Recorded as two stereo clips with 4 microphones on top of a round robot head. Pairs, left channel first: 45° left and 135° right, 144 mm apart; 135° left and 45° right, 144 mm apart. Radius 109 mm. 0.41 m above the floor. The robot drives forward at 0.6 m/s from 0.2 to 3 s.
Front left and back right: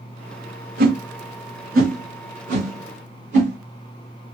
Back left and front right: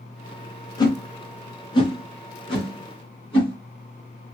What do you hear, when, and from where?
0.8 s a whoosh: 160° right, 1.2 m; by 3.6 s 170° right, 2.5 m